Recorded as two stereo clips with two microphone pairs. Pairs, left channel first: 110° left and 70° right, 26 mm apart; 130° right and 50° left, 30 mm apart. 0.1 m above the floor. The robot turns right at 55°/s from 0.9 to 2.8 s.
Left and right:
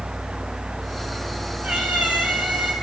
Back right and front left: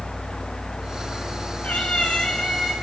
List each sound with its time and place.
1.6 s a cat meowing: 105° right, 2.5 m; by 2.7 s 45° right, 2.5 m